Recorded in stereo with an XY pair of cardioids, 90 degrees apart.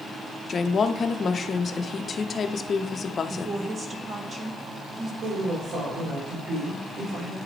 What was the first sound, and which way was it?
A woman speaking, 45° left.